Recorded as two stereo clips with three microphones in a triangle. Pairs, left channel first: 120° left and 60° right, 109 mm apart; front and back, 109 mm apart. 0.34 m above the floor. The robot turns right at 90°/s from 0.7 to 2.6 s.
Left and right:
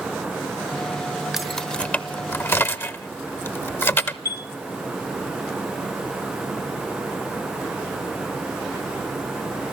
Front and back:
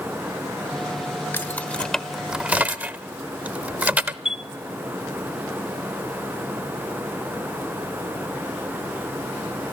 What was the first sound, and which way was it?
Keys jangling, 20° left.